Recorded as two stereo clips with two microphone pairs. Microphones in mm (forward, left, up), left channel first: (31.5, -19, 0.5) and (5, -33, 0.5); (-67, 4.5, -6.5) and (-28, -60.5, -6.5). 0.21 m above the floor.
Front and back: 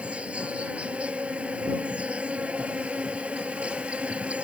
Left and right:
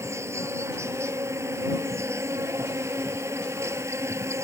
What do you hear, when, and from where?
0.0 s an insect: 110° right